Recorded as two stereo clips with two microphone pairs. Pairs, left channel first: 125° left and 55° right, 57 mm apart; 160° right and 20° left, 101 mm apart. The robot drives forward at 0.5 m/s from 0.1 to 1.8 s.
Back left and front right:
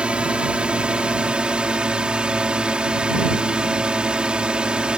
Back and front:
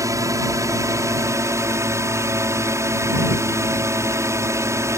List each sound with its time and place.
0.0 s a drone: straight ahead